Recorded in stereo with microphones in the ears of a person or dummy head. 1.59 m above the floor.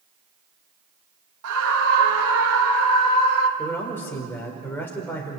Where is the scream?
80° right, 2 m; by 3.5 s 85° right, 3.5 m.